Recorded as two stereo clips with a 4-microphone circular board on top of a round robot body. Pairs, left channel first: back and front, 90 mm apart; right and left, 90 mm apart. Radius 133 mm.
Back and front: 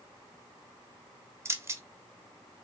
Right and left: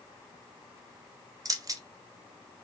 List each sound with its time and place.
1.4 s keys jangling: 50° left, 0.6 m